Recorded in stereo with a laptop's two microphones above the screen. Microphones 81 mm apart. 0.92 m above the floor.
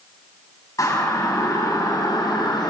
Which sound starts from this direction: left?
A siren, at 0.8 s.